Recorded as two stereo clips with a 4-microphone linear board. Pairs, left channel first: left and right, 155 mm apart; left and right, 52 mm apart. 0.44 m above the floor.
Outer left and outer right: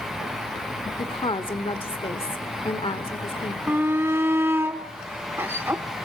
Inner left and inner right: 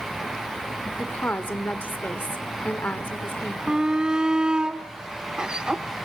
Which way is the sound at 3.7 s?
15° right (ahead or behind).